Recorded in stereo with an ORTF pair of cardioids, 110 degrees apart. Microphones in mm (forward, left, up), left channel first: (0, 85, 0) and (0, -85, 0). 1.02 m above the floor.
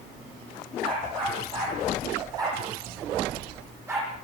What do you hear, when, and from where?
0.8 s a dog barking: 30° right, 10 m; by 4.1 s 15° right, 12.5 m